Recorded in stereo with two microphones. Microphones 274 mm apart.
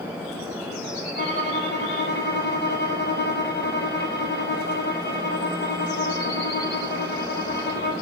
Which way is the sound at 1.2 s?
40° left (ahead or behind).